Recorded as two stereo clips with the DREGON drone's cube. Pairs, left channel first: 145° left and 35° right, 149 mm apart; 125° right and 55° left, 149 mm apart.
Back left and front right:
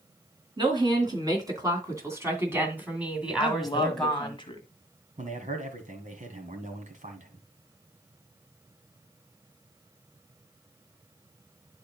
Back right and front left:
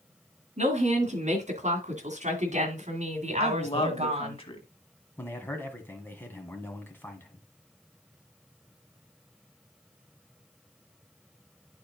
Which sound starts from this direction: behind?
A woman speaking, at 3.4 s.